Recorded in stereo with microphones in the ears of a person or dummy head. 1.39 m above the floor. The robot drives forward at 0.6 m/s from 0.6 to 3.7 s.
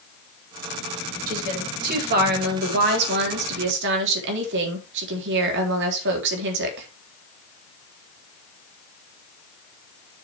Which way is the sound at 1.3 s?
50° right (ahead or behind).